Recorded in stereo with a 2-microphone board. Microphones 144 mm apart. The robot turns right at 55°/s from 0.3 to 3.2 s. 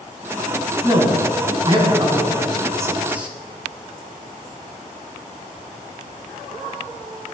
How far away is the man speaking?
About 1.2 m.